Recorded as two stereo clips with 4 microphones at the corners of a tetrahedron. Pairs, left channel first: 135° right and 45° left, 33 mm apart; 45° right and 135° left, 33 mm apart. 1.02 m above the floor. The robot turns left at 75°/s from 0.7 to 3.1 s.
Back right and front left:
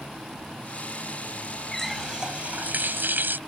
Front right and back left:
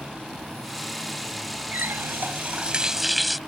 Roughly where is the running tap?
Behind left.